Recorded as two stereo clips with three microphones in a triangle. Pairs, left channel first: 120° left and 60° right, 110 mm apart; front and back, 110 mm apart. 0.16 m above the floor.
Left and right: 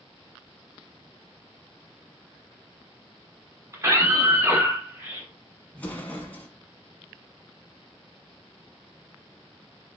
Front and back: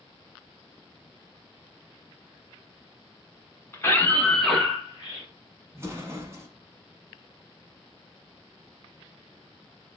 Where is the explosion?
Straight behind, 0.9 m.